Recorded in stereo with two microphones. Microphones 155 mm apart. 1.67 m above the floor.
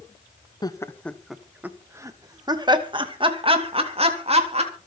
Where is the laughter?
25° left (ahead or behind), 1.1 m; by 4.7 s 45° right (ahead or behind), 3.5 m.